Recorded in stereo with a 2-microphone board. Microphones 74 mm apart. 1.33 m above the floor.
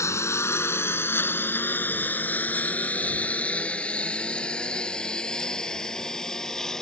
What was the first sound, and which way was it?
A lawn mower, 40° left (ahead or behind).